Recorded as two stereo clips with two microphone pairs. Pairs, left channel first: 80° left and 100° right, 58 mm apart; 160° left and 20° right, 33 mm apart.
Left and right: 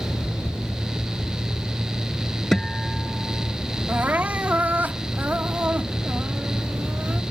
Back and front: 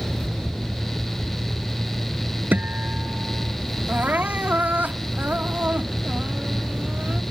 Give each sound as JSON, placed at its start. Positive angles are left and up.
{"t": 2.5, "sound": "a guitar", "azimuth_deg": 0}
{"t": 3.9, "sound": "crying", "azimuth_deg": -40}